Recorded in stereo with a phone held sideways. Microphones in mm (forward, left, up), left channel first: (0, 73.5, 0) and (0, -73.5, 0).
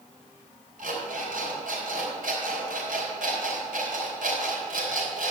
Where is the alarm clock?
70° right (ahead or behind), 4 m.